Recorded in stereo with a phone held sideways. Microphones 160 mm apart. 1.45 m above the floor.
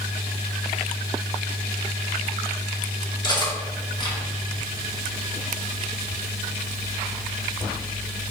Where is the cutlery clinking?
25° left (ahead or behind), 2.5 m.